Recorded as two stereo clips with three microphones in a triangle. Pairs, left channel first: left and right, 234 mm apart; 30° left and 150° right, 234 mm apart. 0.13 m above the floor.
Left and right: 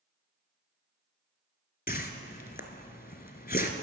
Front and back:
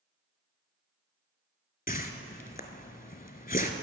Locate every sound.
1.9 s a whoosh: 65° left, 0.8 m